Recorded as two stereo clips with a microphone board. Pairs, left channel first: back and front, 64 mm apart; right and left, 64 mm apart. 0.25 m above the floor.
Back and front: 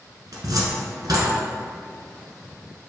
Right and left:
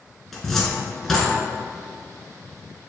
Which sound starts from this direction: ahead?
A cupboard door, at 0.3 s.